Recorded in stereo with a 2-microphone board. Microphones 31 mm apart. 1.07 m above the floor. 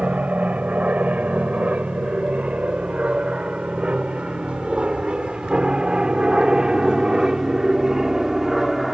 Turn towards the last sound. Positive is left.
turn(degrees=-10)  # may be behind; listen again after turning